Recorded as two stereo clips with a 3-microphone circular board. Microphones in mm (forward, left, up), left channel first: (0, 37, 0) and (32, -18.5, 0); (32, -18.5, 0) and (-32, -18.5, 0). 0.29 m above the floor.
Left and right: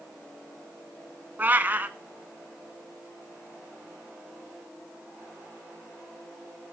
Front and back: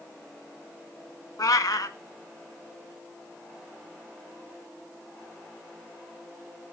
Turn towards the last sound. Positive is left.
turn(degrees=0)